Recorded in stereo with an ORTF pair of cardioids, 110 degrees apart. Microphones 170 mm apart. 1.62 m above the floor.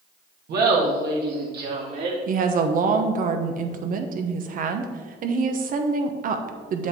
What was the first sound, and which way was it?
Laughter, 65° right.